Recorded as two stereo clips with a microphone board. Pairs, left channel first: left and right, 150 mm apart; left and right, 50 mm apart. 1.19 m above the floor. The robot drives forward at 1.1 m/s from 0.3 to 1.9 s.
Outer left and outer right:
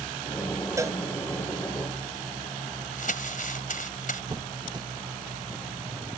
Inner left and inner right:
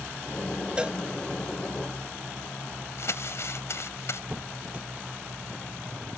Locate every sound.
0.8 s a cowbell: 20° right (ahead or behind)
3.0 s crumpling: 65° left (ahead or behind)
4.3 s a squeak: 25° right (ahead or behind)